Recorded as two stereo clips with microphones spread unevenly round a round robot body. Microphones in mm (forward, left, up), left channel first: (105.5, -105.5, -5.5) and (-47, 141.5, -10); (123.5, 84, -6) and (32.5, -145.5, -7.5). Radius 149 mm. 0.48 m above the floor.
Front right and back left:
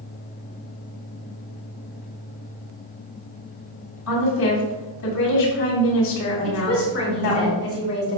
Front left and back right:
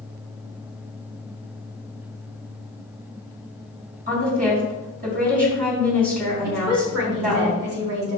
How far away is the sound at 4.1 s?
About 4 m.